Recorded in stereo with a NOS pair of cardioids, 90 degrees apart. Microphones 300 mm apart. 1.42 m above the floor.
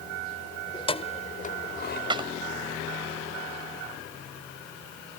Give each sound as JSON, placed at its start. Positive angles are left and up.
{"t": 0.7, "sound": "keys jangling", "azimuth_deg": 15}
{"t": 2.1, "sound": "a clap", "azimuth_deg": -15}